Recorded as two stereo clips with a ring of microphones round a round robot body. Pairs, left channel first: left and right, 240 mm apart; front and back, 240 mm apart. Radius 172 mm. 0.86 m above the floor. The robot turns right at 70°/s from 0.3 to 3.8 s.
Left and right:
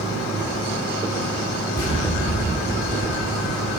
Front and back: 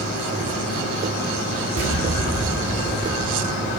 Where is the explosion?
160° left, 2.5 m; by 3.7 s 60° right, 2.5 m.